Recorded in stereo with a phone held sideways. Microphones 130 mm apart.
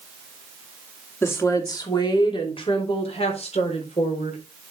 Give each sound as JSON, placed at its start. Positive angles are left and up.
{"t": 1.2, "sound": "a woman speaking", "side_deg": 20, "distance_m": 2.5}